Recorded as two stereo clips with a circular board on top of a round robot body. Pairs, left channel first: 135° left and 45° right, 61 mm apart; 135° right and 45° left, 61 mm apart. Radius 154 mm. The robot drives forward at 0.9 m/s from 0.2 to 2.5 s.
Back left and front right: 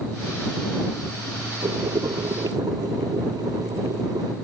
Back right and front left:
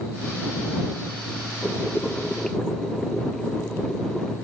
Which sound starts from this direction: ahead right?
Boiling, at 1.6 s.